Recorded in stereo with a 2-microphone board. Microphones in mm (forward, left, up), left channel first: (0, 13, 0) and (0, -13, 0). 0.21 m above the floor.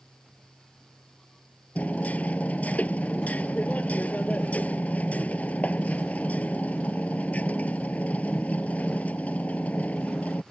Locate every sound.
1.8 s hammering: 75° left (ahead or behind)